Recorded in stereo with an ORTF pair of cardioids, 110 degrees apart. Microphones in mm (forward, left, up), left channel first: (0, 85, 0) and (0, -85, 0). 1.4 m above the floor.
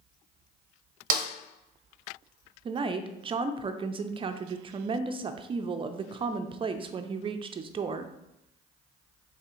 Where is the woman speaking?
30° right, 0.5 m.